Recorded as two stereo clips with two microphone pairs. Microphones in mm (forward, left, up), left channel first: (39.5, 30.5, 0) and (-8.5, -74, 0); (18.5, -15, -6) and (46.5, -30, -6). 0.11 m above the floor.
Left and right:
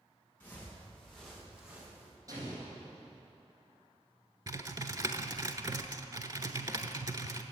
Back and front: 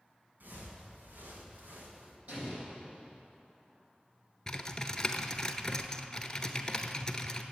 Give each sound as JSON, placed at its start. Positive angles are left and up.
{"t": 0.4, "sound": "footsteps", "azimuth_deg": -10, "distance_m": 4.5}
{"t": 2.3, "sound": "an explosion", "azimuth_deg": -55, "distance_m": 4.0}
{"t": 4.5, "sound": "typing on a keyboard", "azimuth_deg": -140, "distance_m": 0.7}